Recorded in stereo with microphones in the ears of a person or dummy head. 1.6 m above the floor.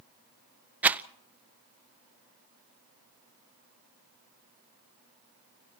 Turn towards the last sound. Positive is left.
turn(degrees=-10)  # may be behind; listen again after turning